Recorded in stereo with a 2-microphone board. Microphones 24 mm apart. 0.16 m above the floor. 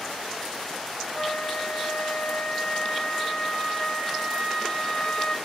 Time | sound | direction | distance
1.1 | a flute | 40° left (ahead or behind) | 0.6 m